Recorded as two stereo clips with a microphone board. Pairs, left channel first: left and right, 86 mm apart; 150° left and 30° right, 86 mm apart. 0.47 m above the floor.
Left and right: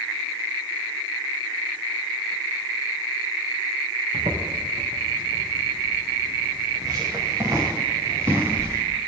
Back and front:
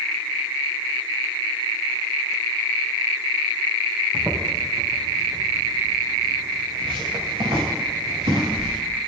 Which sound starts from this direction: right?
Footsteps, at 4.1 s.